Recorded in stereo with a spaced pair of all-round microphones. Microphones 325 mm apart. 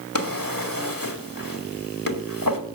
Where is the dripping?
I don't hear dripping.